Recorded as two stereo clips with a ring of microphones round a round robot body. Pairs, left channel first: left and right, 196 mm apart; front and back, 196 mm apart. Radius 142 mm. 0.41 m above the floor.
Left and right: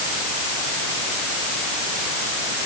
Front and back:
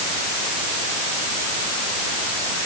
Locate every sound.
Only background noise.